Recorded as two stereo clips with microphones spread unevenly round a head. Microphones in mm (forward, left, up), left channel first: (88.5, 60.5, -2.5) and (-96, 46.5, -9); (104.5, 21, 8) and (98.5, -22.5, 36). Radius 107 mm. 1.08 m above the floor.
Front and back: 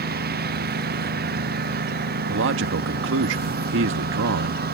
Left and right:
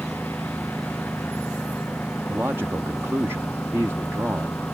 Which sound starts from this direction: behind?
A man speaking, at 2.3 s.